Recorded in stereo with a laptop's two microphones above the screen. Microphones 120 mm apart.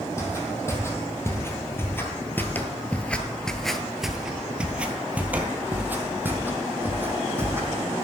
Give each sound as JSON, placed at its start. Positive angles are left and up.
{"t": 0.2, "sound": "footsteps", "side_deg": 20, "distance_m": 1.9}